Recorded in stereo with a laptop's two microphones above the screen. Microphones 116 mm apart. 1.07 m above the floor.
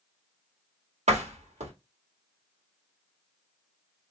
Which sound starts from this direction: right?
A door slam, at 1.1 s.